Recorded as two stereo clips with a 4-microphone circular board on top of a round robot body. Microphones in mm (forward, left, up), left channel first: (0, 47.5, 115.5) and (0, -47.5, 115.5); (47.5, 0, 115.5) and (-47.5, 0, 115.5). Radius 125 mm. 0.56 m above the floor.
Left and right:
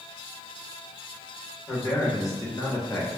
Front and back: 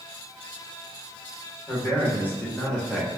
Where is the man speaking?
50° left, 1.7 m; by 3.1 s 100° left, 1.2 m.